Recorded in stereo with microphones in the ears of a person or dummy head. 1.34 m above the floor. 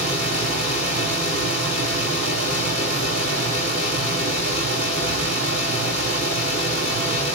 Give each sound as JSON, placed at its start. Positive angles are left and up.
{"t": 0.0, "sound": "a fan", "side_deg": -55, "distance_m": 5.0}